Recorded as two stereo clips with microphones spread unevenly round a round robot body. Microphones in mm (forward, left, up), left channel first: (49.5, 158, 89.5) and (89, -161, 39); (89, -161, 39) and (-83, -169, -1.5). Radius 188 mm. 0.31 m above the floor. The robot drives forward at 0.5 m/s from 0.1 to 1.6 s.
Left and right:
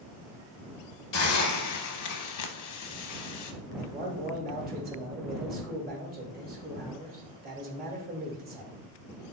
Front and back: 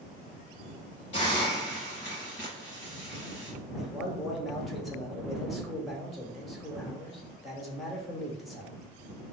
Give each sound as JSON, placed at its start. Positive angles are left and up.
{"t": 1.1, "sound": "a hiss", "azimuth_deg": 45, "distance_m": 0.7}
{"t": 3.8, "sound": "a man speaking", "azimuth_deg": -105, "distance_m": 1.0}